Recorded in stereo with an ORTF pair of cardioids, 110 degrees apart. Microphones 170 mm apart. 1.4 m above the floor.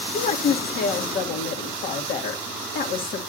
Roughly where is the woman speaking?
Ahead left.